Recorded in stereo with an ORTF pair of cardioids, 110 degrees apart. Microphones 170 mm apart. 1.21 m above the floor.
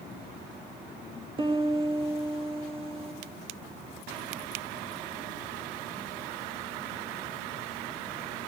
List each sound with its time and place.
1.4 s a piano: 30° right, 1.8 m